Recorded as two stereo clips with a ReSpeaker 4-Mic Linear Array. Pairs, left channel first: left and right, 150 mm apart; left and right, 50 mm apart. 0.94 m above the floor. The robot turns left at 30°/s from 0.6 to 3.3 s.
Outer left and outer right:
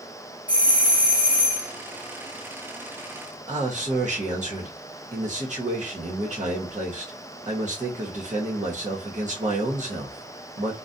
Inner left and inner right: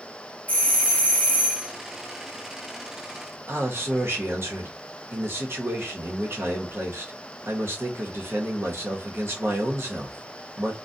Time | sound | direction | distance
0.5 | a doorbell | 110° left | 0.8 m
3.5 | a man speaking | 55° right (ahead or behind) | 1.0 m